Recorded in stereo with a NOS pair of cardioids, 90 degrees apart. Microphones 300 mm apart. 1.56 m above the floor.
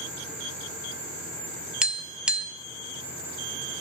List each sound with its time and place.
1.8 s tapping: 5° right, 0.5 m